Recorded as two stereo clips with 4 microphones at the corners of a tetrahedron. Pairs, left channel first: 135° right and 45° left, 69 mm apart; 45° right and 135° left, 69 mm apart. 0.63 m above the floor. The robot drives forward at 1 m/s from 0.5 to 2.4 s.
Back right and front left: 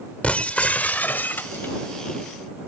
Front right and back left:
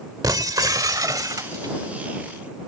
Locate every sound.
0.2 s breaking glass: 155° left; by 2.7 s 170° left